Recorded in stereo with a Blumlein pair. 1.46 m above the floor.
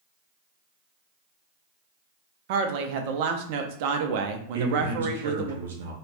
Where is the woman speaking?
45° right, 0.5 m.